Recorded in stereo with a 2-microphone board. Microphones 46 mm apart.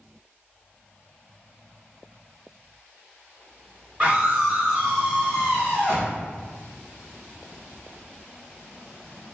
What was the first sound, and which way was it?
A scream, 20° right (ahead or behind).